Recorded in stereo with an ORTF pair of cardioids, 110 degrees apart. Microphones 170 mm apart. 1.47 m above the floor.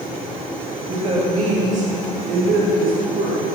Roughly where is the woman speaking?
Ahead right.